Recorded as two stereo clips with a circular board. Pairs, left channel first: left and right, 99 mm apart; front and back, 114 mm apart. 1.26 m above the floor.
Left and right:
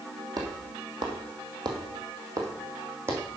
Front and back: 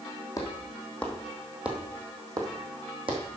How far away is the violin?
I don't hear a violin.